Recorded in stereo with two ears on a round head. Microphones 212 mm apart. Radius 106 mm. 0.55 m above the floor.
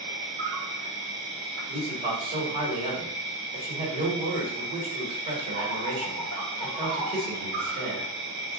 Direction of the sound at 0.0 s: 50° right (ahead or behind).